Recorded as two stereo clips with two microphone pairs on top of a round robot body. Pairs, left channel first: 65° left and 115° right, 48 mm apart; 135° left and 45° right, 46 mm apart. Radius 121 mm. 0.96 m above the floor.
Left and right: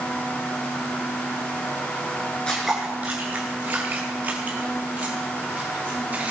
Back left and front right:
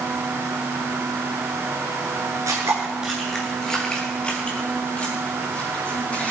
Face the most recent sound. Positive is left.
turn(degrees=-170)